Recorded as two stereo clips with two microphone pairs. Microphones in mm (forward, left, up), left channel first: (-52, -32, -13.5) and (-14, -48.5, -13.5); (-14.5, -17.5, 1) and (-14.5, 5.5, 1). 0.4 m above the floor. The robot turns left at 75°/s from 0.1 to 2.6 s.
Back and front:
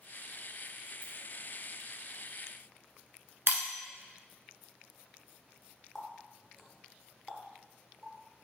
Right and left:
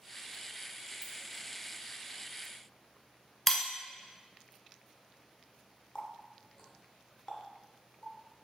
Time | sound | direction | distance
1.0 | a ringtone | 80° left | 0.9 m
3.5 | breaking glass | 10° right | 0.5 m
6.0 | a running tap | 125° right | 0.6 m